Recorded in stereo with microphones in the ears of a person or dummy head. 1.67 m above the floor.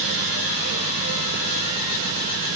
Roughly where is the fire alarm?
I don't hear a fire alarm.